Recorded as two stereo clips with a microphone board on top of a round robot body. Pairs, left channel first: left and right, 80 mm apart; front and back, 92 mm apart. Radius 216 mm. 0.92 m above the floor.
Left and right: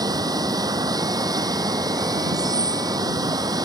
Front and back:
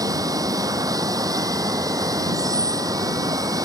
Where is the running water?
130° right.